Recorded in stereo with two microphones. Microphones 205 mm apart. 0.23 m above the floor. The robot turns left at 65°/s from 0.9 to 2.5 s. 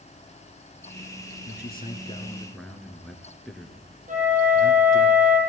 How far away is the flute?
About 6.5 m.